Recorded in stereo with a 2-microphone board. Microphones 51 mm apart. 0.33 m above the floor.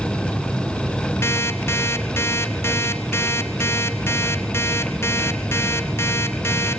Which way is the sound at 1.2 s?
55° left (ahead or behind).